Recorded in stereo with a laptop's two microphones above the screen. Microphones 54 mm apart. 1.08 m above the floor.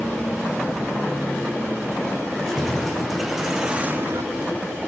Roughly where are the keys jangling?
Centre.